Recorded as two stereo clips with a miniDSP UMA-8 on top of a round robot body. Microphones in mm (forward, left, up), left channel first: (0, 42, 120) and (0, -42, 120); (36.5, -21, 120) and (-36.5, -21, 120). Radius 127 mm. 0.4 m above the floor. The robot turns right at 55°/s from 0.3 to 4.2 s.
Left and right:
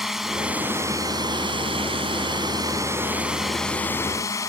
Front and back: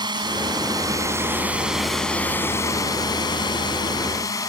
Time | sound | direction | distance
0.0 | a drone | 175° right | ?